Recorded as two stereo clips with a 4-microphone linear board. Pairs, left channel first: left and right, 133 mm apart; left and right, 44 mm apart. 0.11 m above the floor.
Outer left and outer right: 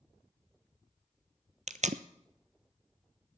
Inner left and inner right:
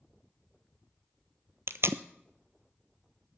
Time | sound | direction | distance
1.7 | tape being pulled | 65° right (ahead or behind) | 0.6 m